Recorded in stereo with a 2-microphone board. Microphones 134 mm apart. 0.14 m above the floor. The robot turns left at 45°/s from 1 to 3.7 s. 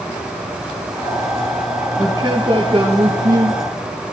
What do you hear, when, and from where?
2.0 s a man speaking: 25° right, 3 m; by 3.6 s 95° right, 3 m